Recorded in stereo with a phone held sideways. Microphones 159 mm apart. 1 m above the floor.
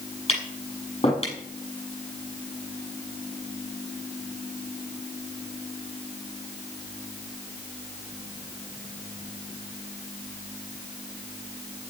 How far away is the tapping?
About 7 m.